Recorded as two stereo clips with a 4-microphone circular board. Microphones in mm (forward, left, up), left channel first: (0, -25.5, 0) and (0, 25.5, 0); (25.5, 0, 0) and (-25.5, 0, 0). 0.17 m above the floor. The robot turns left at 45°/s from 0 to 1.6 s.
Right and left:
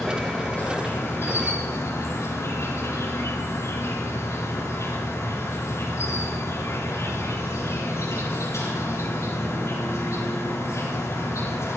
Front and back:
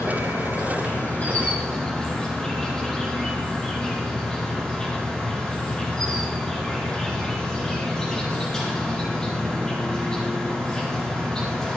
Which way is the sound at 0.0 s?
5° right.